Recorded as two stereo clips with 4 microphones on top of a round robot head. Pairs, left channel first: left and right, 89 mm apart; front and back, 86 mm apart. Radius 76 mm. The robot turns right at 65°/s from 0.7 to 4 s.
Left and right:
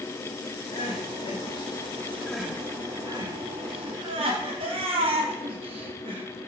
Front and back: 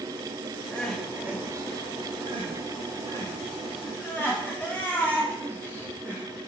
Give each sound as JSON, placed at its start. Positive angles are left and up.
{"t": 0.7, "sound": "crying", "azimuth_deg": 70, "distance_m": 3.5}